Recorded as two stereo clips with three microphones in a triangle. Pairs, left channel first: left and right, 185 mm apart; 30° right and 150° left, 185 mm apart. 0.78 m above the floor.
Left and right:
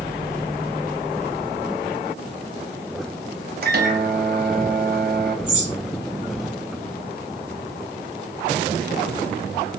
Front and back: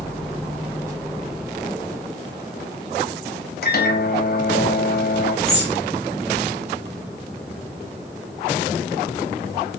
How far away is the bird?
About 1.7 m.